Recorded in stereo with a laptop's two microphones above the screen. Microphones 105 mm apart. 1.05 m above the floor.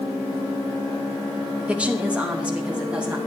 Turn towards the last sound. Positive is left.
turn(degrees=-10)  # may be behind; listen again after turning